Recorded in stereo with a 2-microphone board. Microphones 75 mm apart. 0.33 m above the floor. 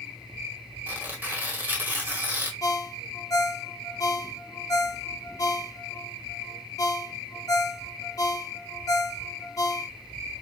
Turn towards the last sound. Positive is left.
turn(degrees=45)  # may be behind; listen again after turning